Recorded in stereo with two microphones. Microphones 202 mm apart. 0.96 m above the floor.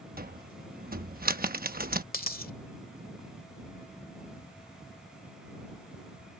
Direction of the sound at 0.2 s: 45° right (ahead or behind).